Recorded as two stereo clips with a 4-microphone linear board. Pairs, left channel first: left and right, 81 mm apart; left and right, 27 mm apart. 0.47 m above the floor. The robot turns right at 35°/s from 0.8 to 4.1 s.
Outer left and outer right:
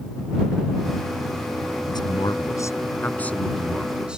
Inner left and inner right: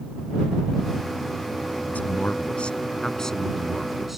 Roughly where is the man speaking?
Left.